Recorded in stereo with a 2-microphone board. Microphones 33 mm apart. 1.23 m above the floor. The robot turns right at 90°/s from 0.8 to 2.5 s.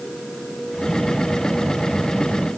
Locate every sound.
Only background noise.